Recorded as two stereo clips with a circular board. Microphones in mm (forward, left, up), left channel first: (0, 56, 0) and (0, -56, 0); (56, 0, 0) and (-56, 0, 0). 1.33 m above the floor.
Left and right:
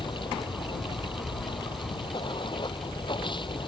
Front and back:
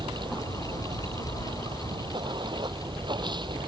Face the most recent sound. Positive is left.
turn(degrees=135)